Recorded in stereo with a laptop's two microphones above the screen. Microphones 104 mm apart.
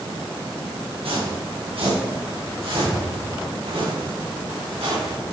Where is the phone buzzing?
No phone buzzing in this recording.